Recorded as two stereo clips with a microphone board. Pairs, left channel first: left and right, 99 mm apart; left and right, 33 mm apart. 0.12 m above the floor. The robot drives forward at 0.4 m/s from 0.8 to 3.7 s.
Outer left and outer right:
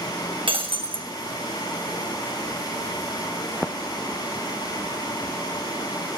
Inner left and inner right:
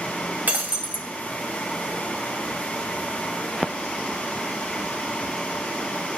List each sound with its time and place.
0.5 s breaking glass: 60° right (ahead or behind), 1.9 m; by 1.1 s 65° right (ahead or behind), 1.9 m